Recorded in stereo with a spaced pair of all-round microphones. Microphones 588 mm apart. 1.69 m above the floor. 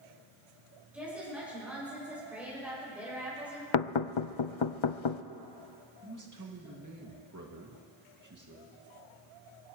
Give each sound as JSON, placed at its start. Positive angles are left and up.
{"t": 0.9, "sound": "a woman speaking", "side_deg": 0, "distance_m": 6.5}
{"t": 3.7, "sound": "knocking", "side_deg": 55, "distance_m": 0.5}
{"t": 6.0, "sound": "a man speaking", "side_deg": -30, "distance_m": 2.5}